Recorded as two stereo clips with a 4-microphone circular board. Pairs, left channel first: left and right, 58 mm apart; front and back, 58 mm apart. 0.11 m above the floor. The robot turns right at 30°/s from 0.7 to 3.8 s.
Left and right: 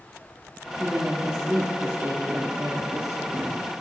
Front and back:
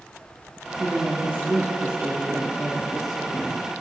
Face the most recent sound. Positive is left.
turn(degrees=-75)